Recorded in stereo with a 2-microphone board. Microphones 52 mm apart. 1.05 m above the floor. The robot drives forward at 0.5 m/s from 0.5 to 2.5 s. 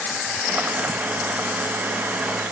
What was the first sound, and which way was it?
Only background noise.